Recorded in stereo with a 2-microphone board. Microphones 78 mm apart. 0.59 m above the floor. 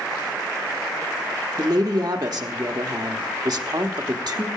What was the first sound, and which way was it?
A woman speaking, 55° right (ahead or behind).